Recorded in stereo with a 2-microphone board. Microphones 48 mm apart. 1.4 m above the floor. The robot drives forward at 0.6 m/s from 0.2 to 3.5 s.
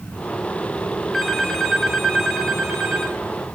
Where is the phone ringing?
Centre (ahead or behind), 1.7 m.